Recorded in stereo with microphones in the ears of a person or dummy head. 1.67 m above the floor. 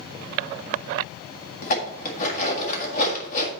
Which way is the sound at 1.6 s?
50° left (ahead or behind).